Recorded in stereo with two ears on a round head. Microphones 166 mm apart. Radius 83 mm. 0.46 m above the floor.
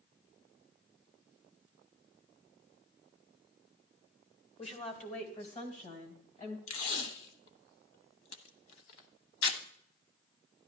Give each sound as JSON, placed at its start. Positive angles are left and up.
{"t": 4.6, "sound": "a woman speaking", "side_deg": 35, "distance_m": 1.7}
{"t": 6.7, "sound": "tape being pulled", "side_deg": 80, "distance_m": 1.0}